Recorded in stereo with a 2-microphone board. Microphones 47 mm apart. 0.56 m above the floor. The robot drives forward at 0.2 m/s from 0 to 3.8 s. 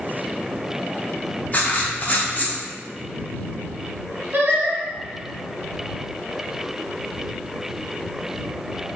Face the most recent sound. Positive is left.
turn(degrees=-40)  # may be behind; listen again after turning